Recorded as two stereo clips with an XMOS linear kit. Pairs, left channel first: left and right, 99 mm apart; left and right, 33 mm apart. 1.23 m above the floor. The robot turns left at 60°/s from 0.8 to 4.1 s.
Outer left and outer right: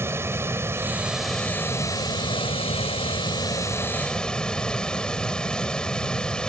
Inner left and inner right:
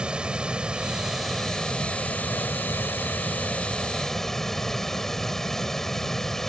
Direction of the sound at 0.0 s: 155° right.